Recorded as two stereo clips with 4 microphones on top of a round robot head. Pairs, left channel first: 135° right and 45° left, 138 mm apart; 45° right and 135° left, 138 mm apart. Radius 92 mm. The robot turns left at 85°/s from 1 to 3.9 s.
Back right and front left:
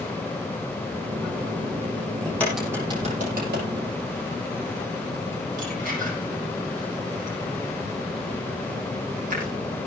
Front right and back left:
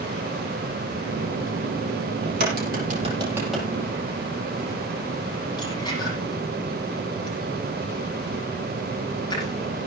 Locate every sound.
2.2 s a crack: 160° left, 6.5 m; by 9.9 s 20° left, 6.5 m